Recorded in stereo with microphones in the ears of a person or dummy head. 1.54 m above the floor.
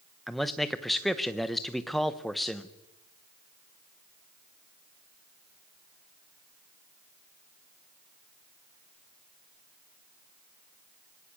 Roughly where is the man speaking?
Centre.